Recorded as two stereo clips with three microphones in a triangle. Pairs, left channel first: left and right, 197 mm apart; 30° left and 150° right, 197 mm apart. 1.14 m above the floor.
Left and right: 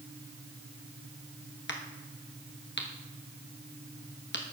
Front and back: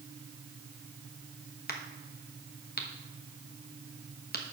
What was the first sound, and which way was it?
A crack, 65° left.